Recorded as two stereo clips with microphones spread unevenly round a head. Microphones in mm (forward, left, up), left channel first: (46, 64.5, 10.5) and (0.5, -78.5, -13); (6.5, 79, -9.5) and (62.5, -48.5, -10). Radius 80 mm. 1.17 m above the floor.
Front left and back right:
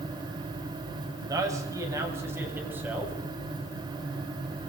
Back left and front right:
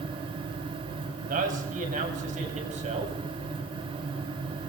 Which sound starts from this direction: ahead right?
A man speaking, at 1.3 s.